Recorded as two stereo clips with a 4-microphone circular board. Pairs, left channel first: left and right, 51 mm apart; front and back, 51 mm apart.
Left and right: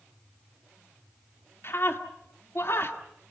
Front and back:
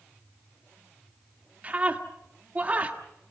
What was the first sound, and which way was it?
A scream, 120° left.